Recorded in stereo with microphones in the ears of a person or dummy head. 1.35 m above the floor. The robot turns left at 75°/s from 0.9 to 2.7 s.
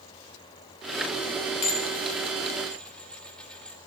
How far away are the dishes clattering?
About 0.6 m.